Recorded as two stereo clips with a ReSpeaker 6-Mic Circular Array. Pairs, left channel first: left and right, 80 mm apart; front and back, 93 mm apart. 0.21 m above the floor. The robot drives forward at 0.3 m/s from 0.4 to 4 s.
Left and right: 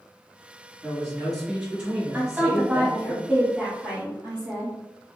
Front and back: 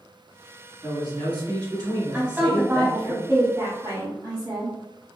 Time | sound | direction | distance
0.8 | a man speaking | 170° right | 1.9 m
2.1 | a woman speaking | 125° right | 1.1 m